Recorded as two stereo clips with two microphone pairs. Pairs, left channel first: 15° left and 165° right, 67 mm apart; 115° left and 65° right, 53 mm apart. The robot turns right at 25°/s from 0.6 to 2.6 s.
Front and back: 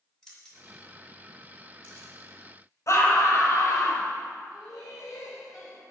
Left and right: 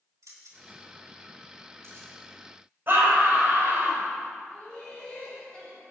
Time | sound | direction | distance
0.2 | keys jangling | 65° right | 4 m
2.9 | a scream | 15° right | 4.5 m
4.5 | laughter | 40° left | 6 m